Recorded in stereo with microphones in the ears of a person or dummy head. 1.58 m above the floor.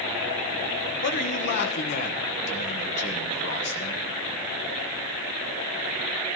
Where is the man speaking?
55° left (ahead or behind), 1.3 m.